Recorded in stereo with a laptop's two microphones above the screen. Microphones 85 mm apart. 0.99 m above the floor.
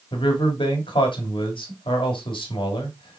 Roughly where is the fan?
I don't hear a fan.